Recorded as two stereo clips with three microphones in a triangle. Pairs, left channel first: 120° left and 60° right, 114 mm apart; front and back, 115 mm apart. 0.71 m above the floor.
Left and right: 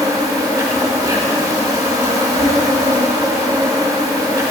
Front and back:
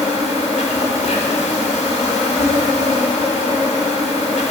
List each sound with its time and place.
0.0 s an insect: 5° right, 1.8 m